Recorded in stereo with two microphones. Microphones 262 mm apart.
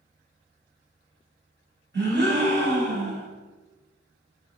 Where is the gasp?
45° right (ahead or behind), 1.9 m.